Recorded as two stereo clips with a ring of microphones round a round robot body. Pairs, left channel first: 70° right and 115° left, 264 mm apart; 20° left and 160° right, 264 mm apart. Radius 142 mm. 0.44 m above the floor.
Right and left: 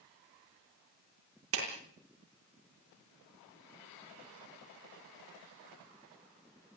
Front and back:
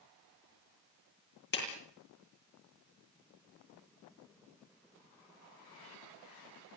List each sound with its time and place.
1.5 s a clap: 75° left, 9 m